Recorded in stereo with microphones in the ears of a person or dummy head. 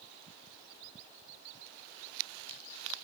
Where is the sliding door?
I don't hear a sliding door.